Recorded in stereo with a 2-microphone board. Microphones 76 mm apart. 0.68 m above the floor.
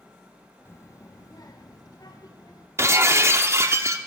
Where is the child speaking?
35° left (ahead or behind), 0.6 m; by 2.7 s 65° left (ahead or behind), 1.6 m.